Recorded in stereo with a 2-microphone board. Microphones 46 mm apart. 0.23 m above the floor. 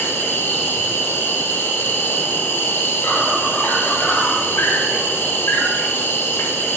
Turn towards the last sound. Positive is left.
turn(degrees=60)  # may be behind; listen again after turning